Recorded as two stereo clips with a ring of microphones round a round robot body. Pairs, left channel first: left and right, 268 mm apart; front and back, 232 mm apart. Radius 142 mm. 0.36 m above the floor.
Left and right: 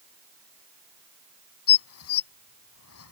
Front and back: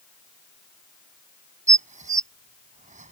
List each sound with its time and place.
1.7 s dishes clattering: 125° left